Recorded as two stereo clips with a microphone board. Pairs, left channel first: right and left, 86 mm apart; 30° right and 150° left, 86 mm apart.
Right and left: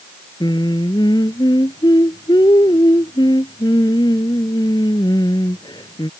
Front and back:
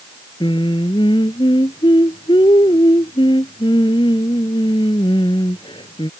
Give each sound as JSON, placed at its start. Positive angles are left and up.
{"t": 0.4, "sound": "singing", "azimuth_deg": -55}